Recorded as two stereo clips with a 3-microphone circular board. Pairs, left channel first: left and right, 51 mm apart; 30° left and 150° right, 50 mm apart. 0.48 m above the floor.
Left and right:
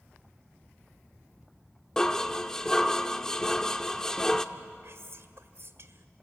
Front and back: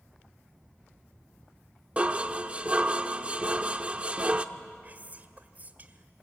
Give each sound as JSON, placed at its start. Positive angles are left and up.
{"t": 2.0, "sound": "dishes clattering", "azimuth_deg": 165, "distance_m": 0.8}
{"t": 4.8, "sound": "whispering", "azimuth_deg": -105, "distance_m": 1.7}